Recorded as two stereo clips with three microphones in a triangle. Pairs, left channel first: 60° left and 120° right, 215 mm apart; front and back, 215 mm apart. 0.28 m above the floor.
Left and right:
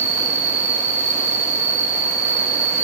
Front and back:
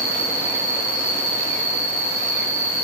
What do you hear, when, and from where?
0.0 s an insect: 50° right, 2.5 m